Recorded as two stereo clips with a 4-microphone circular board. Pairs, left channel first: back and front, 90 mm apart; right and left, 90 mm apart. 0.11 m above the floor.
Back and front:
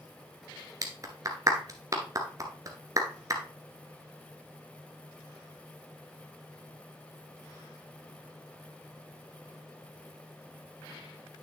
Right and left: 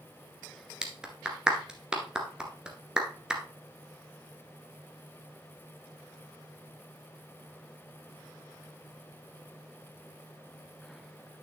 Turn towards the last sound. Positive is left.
turn(degrees=15)